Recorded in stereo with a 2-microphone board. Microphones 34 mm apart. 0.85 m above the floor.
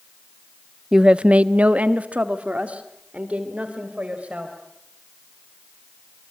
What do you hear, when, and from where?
0.9 s a woman speaking: 20° right (ahead or behind), 0.6 m; by 4.5 s 40° right (ahead or behind), 4 m